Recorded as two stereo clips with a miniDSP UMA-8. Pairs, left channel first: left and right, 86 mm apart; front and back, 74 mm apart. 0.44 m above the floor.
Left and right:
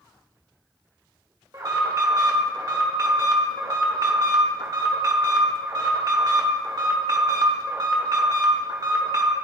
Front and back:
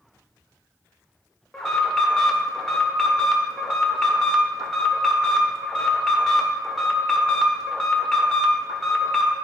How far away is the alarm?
About 0.9 m.